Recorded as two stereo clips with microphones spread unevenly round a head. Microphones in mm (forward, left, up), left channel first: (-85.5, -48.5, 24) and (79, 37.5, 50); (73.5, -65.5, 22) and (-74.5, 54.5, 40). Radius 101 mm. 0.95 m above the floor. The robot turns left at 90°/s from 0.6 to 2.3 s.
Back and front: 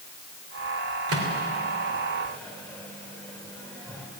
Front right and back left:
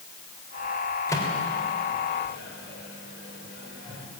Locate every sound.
1.1 s a microwave: 40° left, 3 m; by 4.1 s 70° right, 3 m